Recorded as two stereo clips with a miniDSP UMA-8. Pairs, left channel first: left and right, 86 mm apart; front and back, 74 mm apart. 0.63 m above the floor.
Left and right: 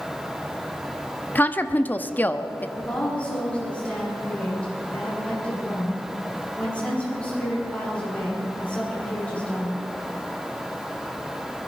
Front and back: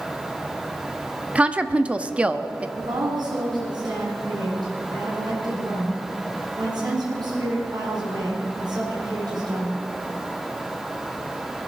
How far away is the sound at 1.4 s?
About 0.7 m.